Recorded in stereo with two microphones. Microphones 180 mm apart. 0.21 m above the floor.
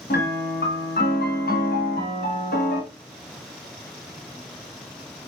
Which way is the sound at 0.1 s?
55° left (ahead or behind).